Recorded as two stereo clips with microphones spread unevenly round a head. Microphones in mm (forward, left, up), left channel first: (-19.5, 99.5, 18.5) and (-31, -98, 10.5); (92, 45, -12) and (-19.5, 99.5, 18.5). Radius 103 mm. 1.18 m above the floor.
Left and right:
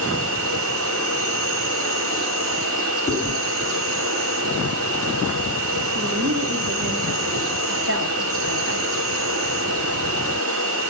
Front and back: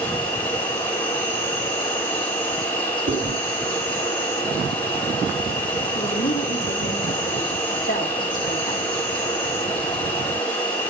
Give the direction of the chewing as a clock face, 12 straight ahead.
7 o'clock.